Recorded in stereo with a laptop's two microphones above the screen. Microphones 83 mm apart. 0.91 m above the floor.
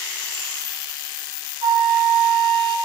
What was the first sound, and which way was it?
A flute, 70° right (ahead or behind).